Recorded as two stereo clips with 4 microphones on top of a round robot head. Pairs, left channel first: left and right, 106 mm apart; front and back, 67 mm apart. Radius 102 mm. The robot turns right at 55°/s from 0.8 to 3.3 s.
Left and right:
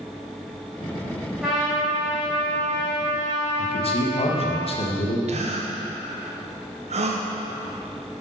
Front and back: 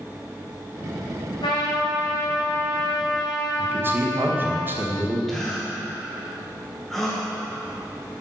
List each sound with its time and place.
1.4 s a trumpet: 10° right, 2.5 m; by 4.6 s 95° left, 2.5 m
3.6 s a man speaking: 120° left, 1.4 m
5.3 s a gasp: 90° right, 1.0 m